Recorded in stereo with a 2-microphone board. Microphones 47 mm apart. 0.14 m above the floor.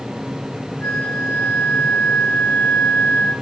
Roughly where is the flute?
Left.